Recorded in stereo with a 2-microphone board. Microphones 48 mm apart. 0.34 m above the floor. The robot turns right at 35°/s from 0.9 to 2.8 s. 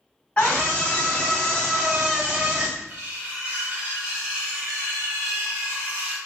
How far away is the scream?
About 2 m.